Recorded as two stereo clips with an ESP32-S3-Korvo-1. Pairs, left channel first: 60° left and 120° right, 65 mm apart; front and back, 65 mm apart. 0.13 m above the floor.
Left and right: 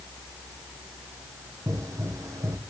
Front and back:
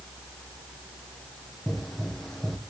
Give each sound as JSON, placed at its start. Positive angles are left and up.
{"t": 1.7, "sound": "a pop", "azimuth_deg": -90, "distance_m": 1.1}